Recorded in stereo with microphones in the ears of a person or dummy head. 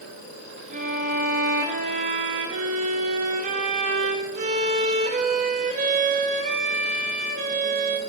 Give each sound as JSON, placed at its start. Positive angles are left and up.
{"t": 0.7, "sound": "a violin", "side_deg": -40, "distance_m": 0.5}